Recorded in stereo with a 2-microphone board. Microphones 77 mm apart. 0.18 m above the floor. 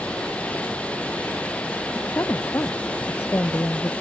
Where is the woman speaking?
35° left (ahead or behind).